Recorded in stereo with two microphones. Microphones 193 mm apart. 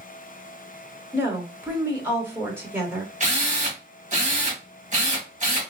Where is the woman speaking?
10° right (ahead or behind), 0.9 m.